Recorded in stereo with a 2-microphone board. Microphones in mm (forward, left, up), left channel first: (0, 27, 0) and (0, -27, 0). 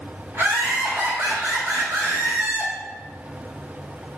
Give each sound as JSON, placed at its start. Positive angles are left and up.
{"t": 0.3, "sound": "laughter", "side_deg": -40, "distance_m": 1.9}